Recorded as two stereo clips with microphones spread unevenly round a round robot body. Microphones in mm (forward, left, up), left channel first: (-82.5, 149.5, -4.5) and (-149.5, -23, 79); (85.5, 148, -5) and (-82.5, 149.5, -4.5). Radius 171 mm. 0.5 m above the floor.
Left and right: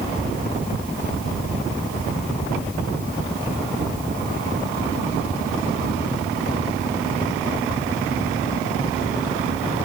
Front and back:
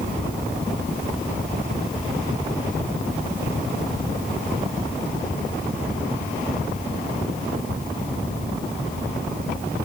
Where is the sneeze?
No sneeze in this recording.